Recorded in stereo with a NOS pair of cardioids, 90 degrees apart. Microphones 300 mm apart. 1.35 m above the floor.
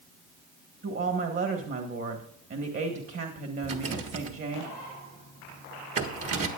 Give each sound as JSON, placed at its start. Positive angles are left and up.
{"t": 0.8, "sound": "a woman speaking", "azimuth_deg": -45, "distance_m": 1.6}
{"t": 3.6, "sound": "a rattle", "azimuth_deg": -50, "distance_m": 1.6}